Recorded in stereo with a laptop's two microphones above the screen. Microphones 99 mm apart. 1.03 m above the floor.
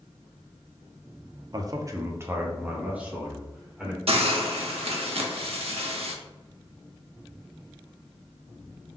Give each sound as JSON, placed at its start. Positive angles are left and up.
{"t": 1.5, "sound": "a man speaking", "side_deg": -40, "distance_m": 0.5}
{"t": 4.1, "sound": "a hiss", "side_deg": -75, "distance_m": 0.9}